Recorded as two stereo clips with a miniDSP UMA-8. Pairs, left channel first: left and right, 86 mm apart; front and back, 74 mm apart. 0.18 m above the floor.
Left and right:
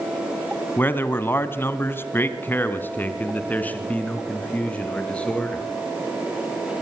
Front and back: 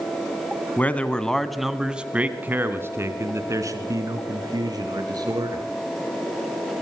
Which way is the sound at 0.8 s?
45° left.